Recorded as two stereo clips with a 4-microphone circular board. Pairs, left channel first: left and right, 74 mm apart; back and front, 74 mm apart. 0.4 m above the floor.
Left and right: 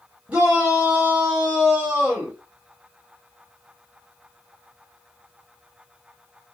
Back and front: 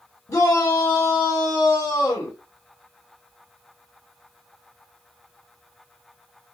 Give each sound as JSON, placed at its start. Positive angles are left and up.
{"t": 0.3, "sound": "a shout", "azimuth_deg": -160, "distance_m": 1.9}